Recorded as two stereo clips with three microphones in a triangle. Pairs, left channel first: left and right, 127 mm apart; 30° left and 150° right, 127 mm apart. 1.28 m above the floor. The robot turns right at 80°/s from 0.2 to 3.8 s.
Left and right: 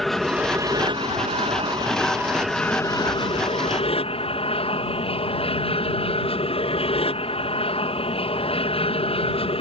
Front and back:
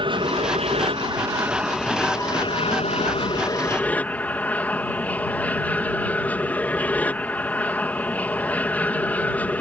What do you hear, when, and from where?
0.0 s an aircraft: 175° left; by 9.6 s 105° left